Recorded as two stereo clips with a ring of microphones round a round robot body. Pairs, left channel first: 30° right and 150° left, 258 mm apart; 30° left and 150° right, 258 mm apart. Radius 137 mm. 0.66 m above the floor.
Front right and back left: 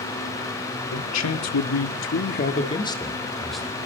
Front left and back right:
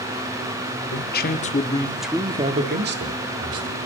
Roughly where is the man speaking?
Ahead.